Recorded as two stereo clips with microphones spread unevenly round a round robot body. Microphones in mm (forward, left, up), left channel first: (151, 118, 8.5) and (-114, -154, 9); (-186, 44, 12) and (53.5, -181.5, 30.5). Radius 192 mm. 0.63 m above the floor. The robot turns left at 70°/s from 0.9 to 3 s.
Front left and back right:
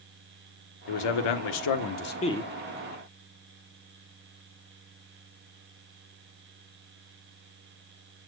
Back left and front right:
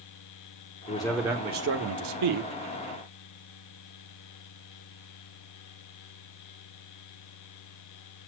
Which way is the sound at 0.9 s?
65° left.